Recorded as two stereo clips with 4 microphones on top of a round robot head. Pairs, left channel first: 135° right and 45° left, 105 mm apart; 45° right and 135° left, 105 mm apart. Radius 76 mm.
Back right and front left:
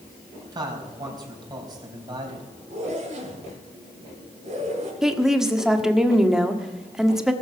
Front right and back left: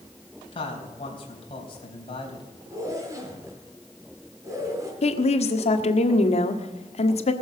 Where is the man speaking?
5° right, 3.5 m.